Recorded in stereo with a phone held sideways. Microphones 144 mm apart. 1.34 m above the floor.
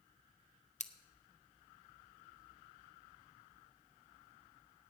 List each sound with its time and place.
0.8 s scissors: 50° left (ahead or behind), 0.7 m